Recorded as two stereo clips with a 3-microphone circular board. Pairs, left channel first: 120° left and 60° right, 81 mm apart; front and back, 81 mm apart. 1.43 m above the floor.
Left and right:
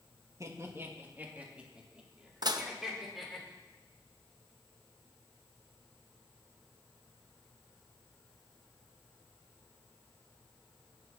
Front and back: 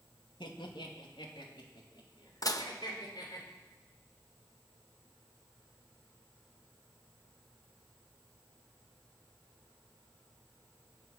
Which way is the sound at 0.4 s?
10° right.